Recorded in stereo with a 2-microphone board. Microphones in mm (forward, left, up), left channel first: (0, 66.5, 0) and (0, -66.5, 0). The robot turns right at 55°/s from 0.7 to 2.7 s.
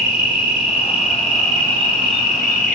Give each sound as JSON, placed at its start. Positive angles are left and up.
{"t": 0.0, "sound": "an insect", "azimuth_deg": 55, "distance_m": 1.6}